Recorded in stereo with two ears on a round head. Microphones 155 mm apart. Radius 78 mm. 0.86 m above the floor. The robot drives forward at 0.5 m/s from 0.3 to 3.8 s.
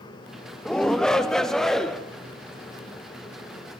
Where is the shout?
5° left (ahead or behind), 0.6 m; by 2.0 s centre (ahead or behind), 1.2 m.